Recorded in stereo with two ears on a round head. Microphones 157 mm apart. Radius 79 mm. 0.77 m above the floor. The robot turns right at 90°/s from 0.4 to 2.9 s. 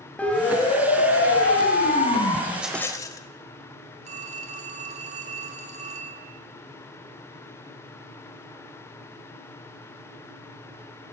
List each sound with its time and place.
0.2 s a siren: 10° left (ahead or behind), 3.5 m
2.5 s a rattle: 15° right, 1.8 m; by 3.2 s 20° left, 1.8 m
4.0 s a phone ringing: 45° right (ahead or behind), 4.5 m